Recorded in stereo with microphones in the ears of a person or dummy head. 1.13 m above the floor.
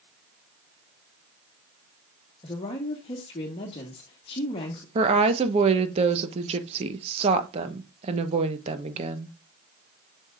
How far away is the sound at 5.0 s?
About 1.0 m.